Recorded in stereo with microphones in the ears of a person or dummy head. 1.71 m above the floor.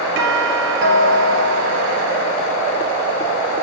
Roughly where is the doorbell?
Right.